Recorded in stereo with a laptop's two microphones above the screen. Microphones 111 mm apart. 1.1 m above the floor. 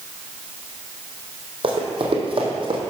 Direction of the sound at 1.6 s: 55° right (ahead or behind).